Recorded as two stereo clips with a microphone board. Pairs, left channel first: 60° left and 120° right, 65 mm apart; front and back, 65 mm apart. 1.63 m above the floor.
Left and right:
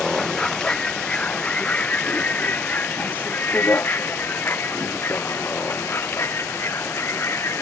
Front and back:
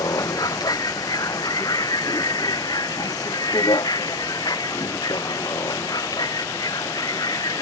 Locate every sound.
0.0 s a vehicle: 20° right; by 7.6 s 10° left